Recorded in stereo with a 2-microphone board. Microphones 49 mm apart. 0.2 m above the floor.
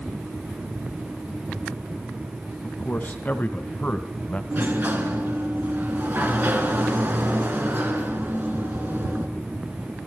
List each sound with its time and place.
2.6 s a man speaking: 35° left (ahead or behind), 1.8 m; by 4.4 s 25° left (ahead or behind), 1.3 m
4.5 s a sliding door: 40° right (ahead or behind), 2.5 m